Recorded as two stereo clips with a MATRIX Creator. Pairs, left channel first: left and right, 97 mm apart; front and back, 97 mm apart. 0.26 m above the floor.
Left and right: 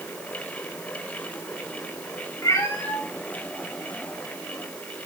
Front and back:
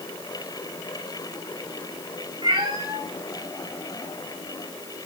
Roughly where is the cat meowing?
Behind left.